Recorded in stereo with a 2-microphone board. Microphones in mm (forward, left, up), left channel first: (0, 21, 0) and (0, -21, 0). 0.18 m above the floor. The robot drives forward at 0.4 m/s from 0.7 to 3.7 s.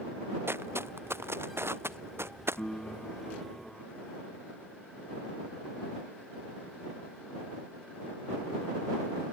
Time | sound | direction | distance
0.5 | footsteps | 70° right (ahead or behind) | ?
2.6 | a piano | 20° left (ahead or behind) | ?